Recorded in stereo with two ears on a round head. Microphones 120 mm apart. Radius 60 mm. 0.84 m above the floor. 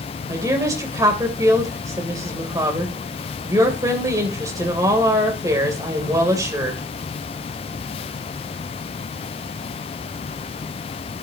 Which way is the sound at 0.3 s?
25° right (ahead or behind).